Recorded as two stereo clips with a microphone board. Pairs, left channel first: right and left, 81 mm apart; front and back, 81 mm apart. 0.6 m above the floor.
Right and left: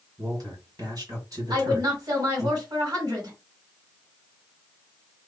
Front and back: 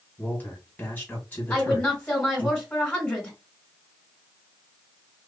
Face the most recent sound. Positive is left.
turn(degrees=80)